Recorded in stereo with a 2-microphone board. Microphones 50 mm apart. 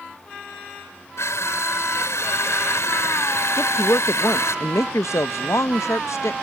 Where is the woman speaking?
80° left.